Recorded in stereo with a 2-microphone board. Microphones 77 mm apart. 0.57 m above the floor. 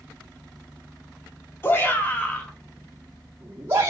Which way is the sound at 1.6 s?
30° left (ahead or behind).